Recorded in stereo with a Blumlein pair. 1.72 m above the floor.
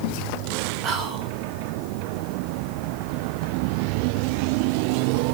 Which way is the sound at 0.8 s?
30° right.